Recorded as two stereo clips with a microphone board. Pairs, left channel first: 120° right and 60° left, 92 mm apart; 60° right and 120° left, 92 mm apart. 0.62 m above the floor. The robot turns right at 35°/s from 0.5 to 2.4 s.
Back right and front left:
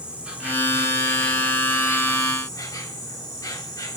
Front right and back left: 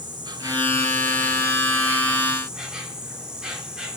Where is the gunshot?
No gunshot in this recording.